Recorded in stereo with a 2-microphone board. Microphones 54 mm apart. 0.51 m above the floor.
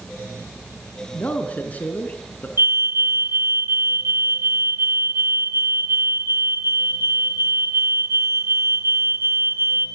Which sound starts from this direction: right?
A fire alarm, at 2.6 s.